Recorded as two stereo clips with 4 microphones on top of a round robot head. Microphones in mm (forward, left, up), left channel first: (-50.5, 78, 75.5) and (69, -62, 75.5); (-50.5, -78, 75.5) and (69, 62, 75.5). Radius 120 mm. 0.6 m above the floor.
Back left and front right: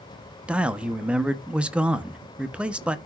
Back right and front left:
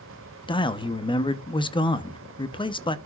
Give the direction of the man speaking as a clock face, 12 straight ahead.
4 o'clock.